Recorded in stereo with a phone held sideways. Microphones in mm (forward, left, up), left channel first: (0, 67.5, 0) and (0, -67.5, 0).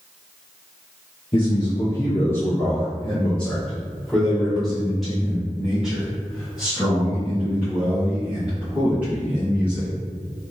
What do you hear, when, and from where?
1.3 s a man speaking: 35° left (ahead or behind), 1.2 m; by 9.9 s 10° right (ahead or behind), 5.5 m